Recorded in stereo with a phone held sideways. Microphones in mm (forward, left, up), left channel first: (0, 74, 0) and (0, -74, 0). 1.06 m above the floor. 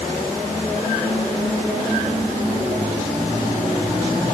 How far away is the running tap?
I don't hear a running tap.